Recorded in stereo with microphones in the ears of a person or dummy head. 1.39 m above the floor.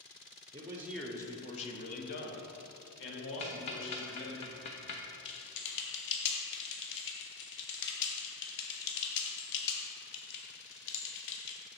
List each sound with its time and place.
0.5 s a man speaking: 25° right (ahead or behind), 0.7 m; by 4.4 s 70° left (ahead or behind), 2.5 m
3.4 s ticking: 25° left (ahead or behind), 0.5 m
5.2 s typing on a keyboard: 60° left (ahead or behind), 1.1 m